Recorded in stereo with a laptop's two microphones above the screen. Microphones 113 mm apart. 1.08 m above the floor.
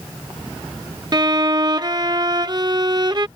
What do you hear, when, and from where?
1.1 s a violin: 40° right (ahead or behind)